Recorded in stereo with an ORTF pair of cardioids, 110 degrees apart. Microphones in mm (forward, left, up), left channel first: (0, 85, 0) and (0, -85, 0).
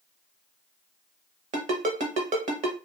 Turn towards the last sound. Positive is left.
turn(degrees=-45)